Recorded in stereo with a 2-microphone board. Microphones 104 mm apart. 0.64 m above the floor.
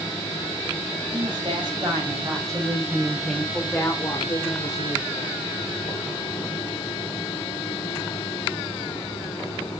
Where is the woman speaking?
50° right (ahead or behind), 4 m; by 5.4 s 65° left (ahead or behind), 3 m.